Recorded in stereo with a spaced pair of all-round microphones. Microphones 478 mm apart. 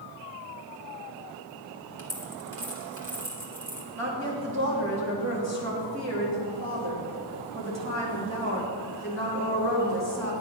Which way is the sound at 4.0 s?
35° right (ahead or behind).